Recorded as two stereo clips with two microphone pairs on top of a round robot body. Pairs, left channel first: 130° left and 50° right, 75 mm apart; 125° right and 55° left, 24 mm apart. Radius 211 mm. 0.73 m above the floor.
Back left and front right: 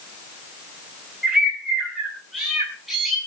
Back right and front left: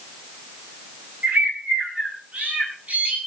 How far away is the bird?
About 8 m.